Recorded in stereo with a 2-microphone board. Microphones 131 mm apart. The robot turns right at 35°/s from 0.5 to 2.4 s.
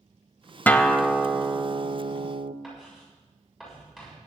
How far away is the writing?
About 7 m.